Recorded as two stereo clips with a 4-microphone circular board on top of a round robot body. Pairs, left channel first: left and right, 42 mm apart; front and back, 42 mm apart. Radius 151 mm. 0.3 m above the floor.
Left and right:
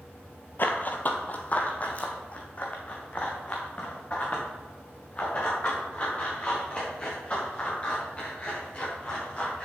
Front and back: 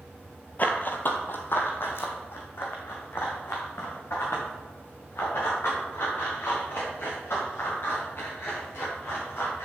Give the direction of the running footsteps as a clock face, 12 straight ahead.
10 o'clock.